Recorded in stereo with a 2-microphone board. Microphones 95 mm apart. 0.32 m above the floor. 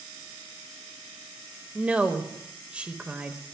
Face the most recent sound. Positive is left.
turn(degrees=-15)  # may be behind; listen again after turning